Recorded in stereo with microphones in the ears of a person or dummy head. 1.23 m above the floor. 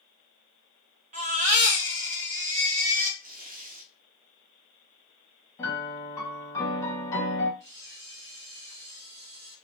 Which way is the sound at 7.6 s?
60° right (ahead or behind).